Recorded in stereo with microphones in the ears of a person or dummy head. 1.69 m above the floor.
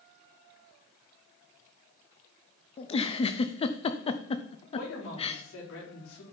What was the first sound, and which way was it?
A giggle, 30° left (ahead or behind).